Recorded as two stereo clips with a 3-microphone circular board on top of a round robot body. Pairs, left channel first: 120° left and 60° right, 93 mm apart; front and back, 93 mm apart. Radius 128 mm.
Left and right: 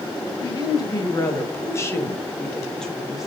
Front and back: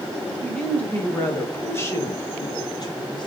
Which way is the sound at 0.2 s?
80° left.